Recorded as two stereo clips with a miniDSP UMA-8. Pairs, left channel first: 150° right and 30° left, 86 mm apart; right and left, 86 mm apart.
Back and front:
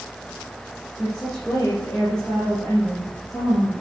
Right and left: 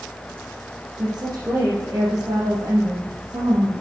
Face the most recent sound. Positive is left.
turn(degrees=140)